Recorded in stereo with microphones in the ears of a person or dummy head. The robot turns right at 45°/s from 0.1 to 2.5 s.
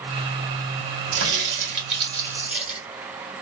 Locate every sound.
1.1 s a crack: 75° right, 1.6 m; by 2.8 s 10° right, 1.6 m